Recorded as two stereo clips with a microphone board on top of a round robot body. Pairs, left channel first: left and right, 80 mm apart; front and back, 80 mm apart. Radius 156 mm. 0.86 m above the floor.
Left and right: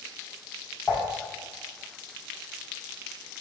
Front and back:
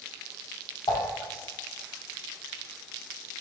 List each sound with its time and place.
0.9 s dishes clattering: 20° left, 1.4 m